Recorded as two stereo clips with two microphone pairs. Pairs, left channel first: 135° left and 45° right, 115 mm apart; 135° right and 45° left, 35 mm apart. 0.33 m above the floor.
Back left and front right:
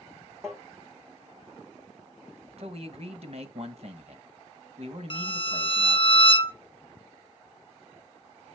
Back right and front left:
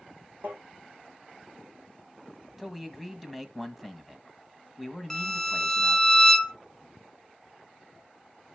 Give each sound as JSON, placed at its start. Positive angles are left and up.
{"t": 0.4, "sound": "tapping", "azimuth_deg": 25, "distance_m": 4.5}
{"t": 2.6, "sound": "a man speaking", "azimuth_deg": -35, "distance_m": 1.7}
{"t": 5.1, "sound": "a violin", "azimuth_deg": 155, "distance_m": 0.7}